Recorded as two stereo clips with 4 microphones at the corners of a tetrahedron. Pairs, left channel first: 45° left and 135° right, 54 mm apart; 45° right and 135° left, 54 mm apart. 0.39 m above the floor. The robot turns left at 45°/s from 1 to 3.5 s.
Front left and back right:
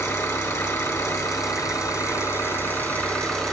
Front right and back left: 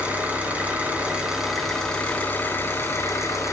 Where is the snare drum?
No snare drum in this recording.